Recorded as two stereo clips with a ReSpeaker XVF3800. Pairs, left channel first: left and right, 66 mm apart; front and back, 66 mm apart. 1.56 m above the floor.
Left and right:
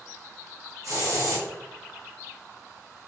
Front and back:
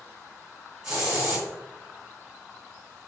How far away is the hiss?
About 1.6 m.